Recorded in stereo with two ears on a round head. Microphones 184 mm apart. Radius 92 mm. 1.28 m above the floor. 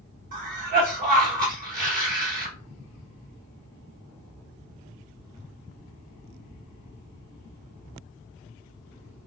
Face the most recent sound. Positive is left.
turn(degrees=-40)  # may be behind; listen again after turning